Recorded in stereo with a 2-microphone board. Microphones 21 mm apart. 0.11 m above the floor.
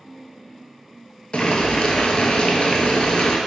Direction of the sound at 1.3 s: 55° left (ahead or behind).